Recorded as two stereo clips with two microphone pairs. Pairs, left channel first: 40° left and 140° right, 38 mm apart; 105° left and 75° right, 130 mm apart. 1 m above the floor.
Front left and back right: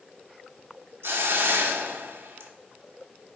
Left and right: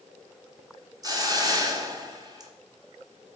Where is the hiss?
140° right, 1.0 m.